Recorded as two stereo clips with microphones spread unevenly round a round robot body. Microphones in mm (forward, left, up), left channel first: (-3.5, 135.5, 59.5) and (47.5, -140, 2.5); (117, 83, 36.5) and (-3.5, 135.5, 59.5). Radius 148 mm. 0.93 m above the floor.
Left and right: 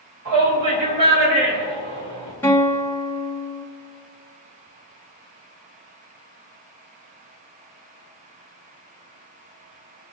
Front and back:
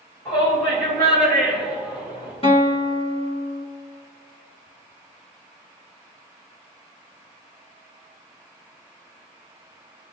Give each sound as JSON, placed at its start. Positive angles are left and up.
{"t": 0.2, "sound": "a shout", "azimuth_deg": -95, "distance_m": 4.5}
{"t": 2.4, "sound": "a guitar", "azimuth_deg": 15, "distance_m": 2.5}